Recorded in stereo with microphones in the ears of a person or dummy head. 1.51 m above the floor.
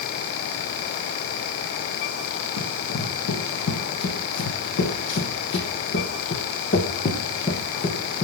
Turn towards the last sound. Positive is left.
turn(degrees=20)  # may be behind; listen again after turning